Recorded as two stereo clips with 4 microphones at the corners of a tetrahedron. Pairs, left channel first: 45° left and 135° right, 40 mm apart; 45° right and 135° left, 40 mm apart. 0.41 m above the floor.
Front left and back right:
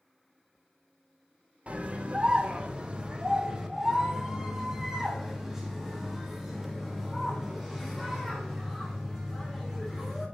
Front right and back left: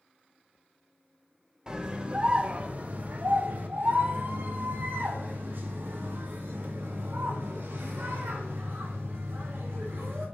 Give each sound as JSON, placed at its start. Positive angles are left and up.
{"t": 1.7, "sound": "a scream", "azimuth_deg": -165, "distance_m": 1.2}